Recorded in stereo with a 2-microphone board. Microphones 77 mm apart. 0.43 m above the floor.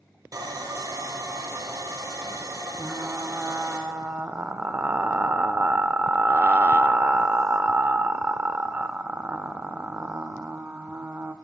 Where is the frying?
25° right (ahead or behind), 0.5 m.